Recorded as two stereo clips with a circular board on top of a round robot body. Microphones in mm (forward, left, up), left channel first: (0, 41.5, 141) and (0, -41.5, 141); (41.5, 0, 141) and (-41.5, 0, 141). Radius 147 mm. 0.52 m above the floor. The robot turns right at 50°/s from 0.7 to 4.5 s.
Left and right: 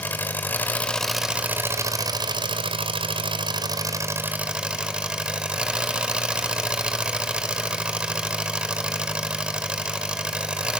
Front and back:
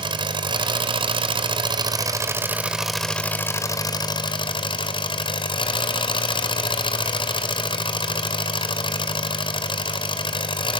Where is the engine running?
160° left, 1.7 m; by 10.8 s 10° right, 1.7 m.